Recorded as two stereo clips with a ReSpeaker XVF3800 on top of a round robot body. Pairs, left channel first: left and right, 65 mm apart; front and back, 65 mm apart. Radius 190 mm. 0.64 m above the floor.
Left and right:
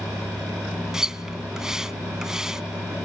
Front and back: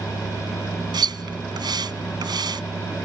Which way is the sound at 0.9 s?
175° right.